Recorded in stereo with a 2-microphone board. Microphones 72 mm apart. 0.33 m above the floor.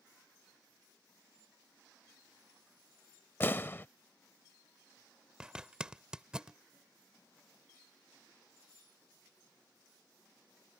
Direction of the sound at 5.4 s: 10° right (ahead or behind).